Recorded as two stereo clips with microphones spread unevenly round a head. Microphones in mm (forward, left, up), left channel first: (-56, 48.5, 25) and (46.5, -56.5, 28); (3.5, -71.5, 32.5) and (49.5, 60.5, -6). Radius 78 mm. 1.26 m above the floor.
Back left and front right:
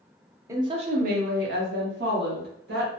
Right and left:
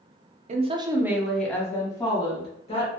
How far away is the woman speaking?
About 0.5 m.